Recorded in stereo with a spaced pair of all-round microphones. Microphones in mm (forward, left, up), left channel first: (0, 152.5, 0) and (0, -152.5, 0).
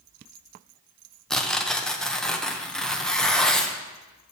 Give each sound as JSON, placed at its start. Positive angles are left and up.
{"t": 1.3, "sound": "tearing paper", "side_deg": 0, "distance_m": 0.6}